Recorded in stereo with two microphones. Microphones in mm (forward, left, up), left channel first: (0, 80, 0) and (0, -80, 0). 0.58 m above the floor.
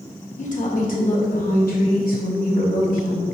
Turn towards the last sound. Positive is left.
turn(degrees=65)  # may be behind; listen again after turning